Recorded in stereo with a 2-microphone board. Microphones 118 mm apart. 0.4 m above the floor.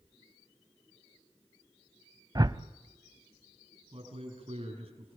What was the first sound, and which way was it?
A whoosh, 35° right (ahead or behind).